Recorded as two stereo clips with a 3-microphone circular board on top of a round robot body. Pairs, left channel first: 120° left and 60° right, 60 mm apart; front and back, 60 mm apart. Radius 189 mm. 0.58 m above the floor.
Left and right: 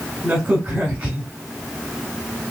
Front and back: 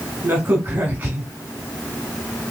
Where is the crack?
130° right, 0.9 m.